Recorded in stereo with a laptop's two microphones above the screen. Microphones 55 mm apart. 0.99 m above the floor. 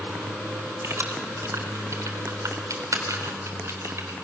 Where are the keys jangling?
50° right (ahead or behind), 3.5 m.